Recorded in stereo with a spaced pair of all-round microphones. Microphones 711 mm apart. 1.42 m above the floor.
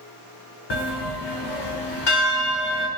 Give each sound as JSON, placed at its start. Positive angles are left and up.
{"t": 0.7, "sound": "a bell", "side_deg": 40, "distance_m": 0.6}